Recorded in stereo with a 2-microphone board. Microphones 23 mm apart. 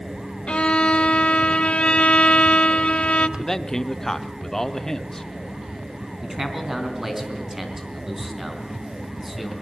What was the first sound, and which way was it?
A violin, 60° left (ahead or behind).